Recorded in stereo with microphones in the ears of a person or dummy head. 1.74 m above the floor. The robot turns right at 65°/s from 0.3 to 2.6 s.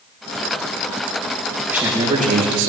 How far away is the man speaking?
About 2.5 m.